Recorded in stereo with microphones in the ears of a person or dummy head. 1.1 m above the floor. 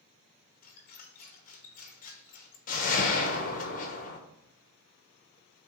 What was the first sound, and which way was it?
A squeak, 50° left (ahead or behind).